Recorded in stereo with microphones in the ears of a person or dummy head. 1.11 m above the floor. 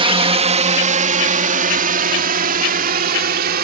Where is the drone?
30° right (ahead or behind); by 3.6 s 55° right (ahead or behind).